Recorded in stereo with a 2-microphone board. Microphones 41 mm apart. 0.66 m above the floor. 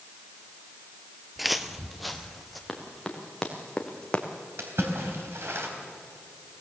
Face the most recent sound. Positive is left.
turn(degrees=-80)